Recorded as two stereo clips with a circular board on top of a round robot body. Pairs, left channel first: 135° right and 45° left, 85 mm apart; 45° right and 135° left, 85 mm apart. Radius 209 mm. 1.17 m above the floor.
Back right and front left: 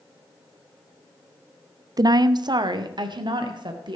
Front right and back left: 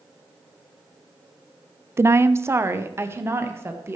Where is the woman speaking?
80° left, 0.6 m; by 4.0 s 75° left, 2.0 m.